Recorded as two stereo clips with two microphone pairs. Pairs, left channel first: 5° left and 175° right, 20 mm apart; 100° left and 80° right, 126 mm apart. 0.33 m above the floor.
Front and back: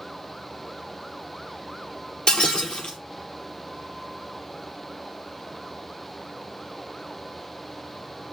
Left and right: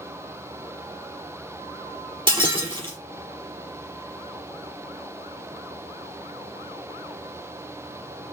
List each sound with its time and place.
2.3 s breaking glass: 30° right, 5 m